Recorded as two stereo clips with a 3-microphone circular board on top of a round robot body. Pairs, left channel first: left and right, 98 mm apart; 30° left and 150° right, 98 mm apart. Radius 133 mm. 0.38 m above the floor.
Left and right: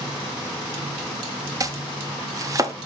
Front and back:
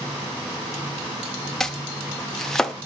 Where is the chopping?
55° right, 0.9 m.